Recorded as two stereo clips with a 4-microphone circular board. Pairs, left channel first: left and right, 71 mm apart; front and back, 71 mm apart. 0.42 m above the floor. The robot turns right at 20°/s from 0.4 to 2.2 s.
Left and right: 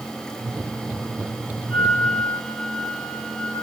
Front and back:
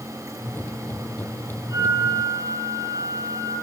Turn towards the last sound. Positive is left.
turn(degrees=-15)